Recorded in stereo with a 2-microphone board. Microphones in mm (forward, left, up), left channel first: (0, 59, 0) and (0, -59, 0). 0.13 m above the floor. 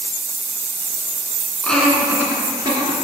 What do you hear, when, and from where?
1.6 s laughter: 10° left (ahead or behind), 1.2 m; by 2.9 s 40° right (ahead or behind), 1.6 m